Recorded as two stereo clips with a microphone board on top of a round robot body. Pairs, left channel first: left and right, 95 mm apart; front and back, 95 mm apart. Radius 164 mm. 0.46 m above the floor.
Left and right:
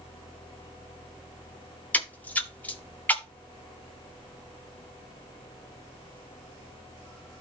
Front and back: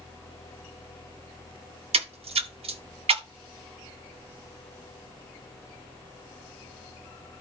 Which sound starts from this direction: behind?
A splash, at 1.9 s.